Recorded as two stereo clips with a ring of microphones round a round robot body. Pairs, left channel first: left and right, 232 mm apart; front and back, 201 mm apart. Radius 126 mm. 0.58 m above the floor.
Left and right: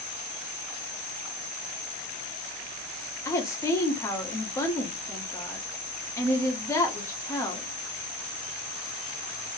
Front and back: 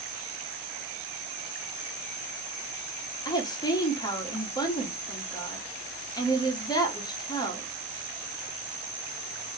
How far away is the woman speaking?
About 1.1 m.